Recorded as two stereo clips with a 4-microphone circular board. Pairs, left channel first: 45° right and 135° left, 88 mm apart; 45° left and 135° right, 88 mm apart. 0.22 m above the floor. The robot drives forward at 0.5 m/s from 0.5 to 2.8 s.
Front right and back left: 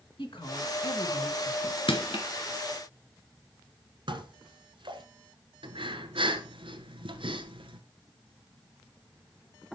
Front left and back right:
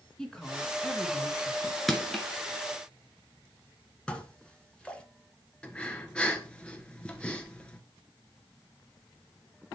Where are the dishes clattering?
120° left, 1.7 m.